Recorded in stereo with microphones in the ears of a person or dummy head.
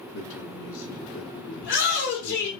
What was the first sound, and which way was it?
A man speaking, 80° left.